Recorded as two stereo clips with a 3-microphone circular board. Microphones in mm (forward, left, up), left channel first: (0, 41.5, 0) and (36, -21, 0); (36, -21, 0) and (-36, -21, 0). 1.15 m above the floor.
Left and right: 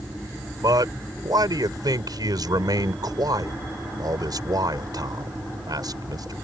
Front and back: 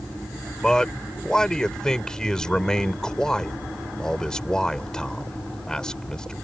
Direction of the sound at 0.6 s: 80° right.